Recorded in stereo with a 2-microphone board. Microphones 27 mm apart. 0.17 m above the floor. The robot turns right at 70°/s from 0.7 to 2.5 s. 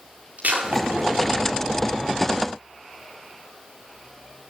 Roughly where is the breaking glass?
Right.